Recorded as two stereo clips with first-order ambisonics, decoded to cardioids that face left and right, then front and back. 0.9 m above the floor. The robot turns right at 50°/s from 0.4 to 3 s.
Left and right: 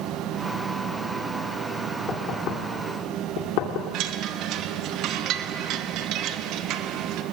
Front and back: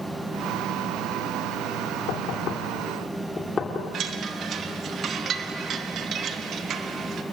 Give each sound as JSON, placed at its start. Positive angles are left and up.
{"t": 2.1, "sound": "knocking", "azimuth_deg": 25, "distance_m": 2.5}
{"t": 3.9, "sound": "a chime", "azimuth_deg": -125, "distance_m": 1.2}